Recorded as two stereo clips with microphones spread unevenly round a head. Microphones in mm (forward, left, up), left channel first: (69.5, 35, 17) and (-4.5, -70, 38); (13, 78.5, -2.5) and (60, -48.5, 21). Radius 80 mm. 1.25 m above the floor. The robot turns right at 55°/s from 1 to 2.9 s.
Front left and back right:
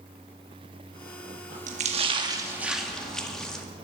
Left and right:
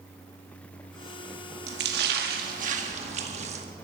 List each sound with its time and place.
1.7 s a splash: 100° right, 1.9 m; by 3.6 s 30° right, 1.9 m